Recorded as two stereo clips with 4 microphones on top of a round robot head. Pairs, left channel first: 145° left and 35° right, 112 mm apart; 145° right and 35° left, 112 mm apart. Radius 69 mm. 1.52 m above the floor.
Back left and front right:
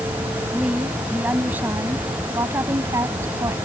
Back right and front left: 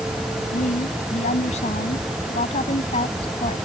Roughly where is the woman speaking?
Behind right.